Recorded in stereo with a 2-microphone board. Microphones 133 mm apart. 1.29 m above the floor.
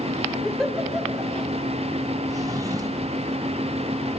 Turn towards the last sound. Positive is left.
turn(degrees=-25)  # may be behind; listen again after turning